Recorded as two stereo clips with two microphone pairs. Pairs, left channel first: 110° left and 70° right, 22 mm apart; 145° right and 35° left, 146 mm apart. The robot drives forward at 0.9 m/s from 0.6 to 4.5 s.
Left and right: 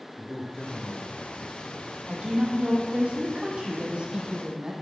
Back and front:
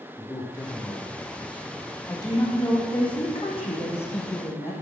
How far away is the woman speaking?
About 4.5 m.